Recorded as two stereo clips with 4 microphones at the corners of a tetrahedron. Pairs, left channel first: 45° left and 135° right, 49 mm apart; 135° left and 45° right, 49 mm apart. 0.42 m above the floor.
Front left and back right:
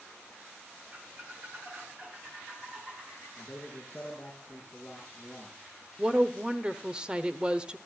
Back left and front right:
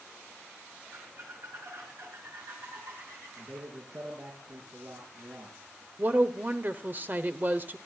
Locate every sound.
0.9 s a squeak: 75° right, 3.5 m
3.4 s a man speaking: 35° right, 5 m
6.0 s a woman speaking: 75° right, 1.0 m